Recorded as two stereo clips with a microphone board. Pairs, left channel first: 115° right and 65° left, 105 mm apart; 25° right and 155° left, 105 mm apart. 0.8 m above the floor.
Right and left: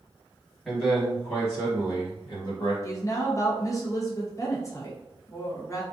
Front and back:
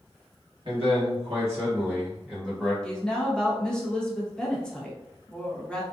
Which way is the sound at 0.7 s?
165° left.